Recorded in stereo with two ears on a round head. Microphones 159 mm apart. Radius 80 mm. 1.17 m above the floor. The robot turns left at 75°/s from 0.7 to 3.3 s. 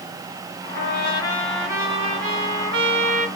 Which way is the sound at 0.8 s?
60° left.